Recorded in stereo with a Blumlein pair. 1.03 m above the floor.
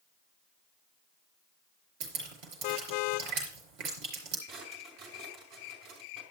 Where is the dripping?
40° right, 5 m.